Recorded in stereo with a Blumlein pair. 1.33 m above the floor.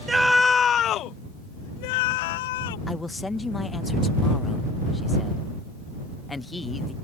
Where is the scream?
10° right; by 2.8 s 55° left.